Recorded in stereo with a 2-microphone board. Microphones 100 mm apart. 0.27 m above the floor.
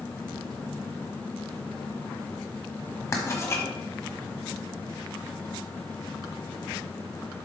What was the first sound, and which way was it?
Writing, 30° left (ahead or behind).